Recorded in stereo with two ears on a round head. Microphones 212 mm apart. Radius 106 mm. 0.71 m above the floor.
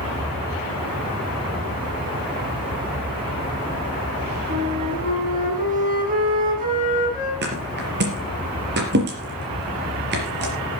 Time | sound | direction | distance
4.5 | a flute | 35° right (ahead or behind) | 5.5 m
7.4 | a thud | 45° right (ahead or behind) | 4.5 m